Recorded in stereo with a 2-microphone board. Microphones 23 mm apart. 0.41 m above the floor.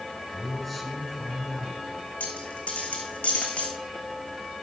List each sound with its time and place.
0.3 s a man speaking: 10° left (ahead or behind), 4.5 m
2.2 s a dropped coin: 80° left, 2 m